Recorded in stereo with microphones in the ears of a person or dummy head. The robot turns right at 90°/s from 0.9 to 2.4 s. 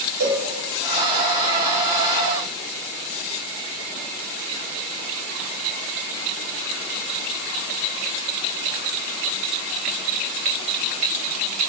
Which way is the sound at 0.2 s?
80° right.